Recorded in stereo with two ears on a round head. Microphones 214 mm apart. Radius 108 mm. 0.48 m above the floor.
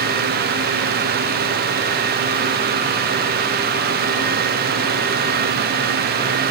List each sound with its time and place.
Only background noise.